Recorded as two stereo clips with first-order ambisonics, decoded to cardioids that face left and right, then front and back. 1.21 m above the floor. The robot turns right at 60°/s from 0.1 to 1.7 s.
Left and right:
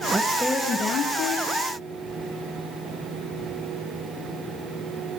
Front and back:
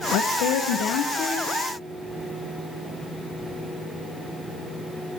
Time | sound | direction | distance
0.1 | a woman speaking | 15° right | 1.0 m